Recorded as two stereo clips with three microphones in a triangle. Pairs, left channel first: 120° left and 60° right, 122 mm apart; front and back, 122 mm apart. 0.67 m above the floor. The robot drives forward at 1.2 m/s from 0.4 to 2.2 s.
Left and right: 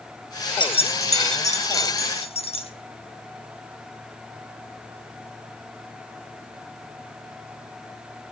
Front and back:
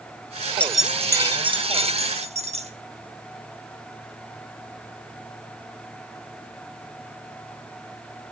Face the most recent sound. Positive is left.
turn(degrees=155)